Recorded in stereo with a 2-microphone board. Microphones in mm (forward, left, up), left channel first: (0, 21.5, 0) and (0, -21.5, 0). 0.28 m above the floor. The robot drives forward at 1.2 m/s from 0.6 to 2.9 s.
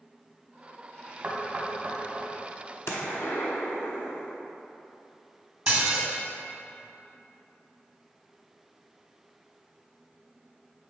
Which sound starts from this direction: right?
Knocking, at 1.2 s.